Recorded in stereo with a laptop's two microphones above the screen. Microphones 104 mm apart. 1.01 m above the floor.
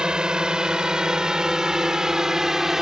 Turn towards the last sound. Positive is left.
turn(degrees=-5)  # may be behind; listen again after turning